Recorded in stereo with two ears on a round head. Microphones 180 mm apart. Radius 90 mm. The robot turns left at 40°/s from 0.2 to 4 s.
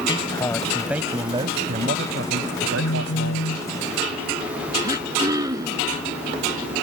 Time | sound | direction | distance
0.1 | a man speaking | 20° left | ?
2.8 | a phone buzzing | 90° left | ?
4.8 | throat clearing | 20° right (ahead or behind) | ?